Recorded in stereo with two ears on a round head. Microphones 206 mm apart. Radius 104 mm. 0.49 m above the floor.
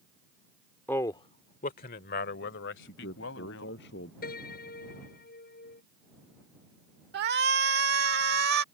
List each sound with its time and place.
0.9 s a man speaking: 10° left (ahead or behind); by 3.8 s 65° left (ahead or behind)
2.8 s a man speaking: 55° left (ahead or behind)
4.2 s a piano: 45° left (ahead or behind)
7.1 s a shout: 50° right (ahead or behind)